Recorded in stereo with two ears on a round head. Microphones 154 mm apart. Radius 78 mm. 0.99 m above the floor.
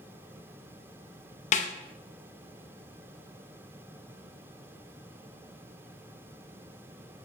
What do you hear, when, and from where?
1.5 s a snare drum: 45° left (ahead or behind), 0.7 m